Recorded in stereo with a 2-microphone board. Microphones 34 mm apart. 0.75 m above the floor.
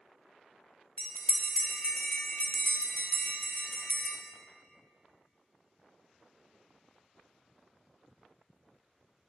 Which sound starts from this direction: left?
A bell, at 1.0 s.